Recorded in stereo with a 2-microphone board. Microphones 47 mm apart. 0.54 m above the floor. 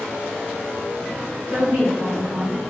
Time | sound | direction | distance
1.5 | a woman speaking | 60° right (ahead or behind) | 1.6 m